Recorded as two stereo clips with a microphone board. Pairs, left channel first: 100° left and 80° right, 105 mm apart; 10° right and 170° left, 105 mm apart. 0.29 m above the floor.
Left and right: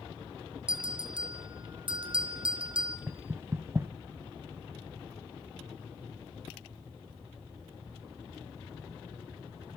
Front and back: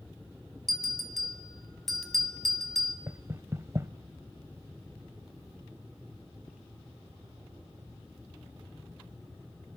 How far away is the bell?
About 2.5 m.